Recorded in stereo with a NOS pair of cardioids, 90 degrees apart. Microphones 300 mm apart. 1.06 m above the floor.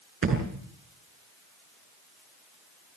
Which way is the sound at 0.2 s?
45° right.